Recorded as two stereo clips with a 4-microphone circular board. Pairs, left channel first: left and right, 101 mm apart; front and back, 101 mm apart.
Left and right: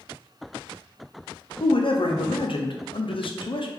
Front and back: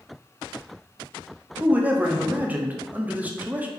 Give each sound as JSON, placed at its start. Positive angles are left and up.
{"t": 1.6, "sound": "a man speaking", "azimuth_deg": 110, "distance_m": 0.5}